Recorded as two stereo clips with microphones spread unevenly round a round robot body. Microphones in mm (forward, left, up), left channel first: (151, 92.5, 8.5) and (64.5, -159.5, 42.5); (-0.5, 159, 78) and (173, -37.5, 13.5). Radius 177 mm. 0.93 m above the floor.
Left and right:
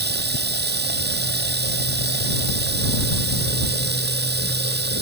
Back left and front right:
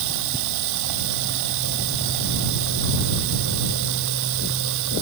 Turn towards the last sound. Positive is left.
turn(degrees=-60)